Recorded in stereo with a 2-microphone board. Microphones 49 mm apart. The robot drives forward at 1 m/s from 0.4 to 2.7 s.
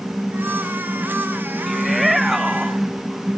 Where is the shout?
Centre (ahead or behind).